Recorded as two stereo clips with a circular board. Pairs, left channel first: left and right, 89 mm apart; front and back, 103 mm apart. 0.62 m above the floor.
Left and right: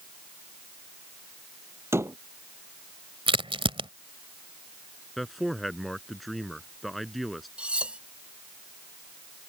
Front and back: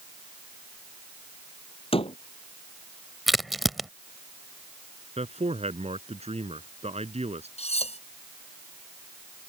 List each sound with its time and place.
1.9 s a door slam: 30° right
3.3 s a crack: 90° right
5.2 s a man speaking: straight behind
7.6 s cutlery clinking: 10° right